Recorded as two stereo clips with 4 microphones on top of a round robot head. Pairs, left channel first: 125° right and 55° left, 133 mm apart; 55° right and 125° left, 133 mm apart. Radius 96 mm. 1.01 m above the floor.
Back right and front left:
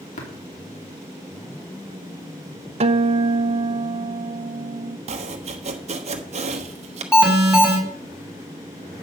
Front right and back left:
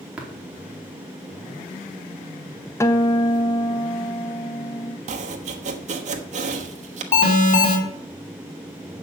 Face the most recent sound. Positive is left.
turn(degrees=-30)